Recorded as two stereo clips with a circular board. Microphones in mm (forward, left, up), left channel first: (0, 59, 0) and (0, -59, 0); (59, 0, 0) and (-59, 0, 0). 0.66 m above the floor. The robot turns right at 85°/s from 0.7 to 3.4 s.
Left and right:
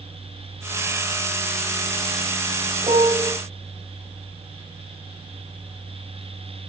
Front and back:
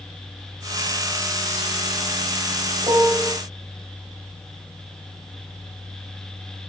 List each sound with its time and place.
2.8 s a piano: 135° right, 1.7 m; by 3.3 s 95° right, 1.7 m